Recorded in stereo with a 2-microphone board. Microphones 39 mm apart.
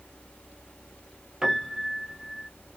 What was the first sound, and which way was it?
A piano, 10° right (ahead or behind).